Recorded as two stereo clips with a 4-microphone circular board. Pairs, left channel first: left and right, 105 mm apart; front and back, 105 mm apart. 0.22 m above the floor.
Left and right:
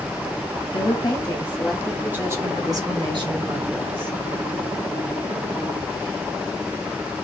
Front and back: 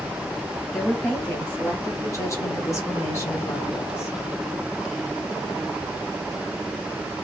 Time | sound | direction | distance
0.7 | a woman speaking | 75° left | 1.4 m